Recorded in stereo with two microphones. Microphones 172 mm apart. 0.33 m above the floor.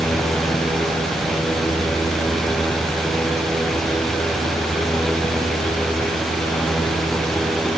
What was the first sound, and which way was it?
Only background noise.